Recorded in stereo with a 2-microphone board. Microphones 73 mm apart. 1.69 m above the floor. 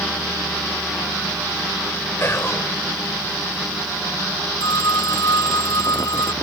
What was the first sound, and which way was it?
Whispering, 35° left (ahead or behind).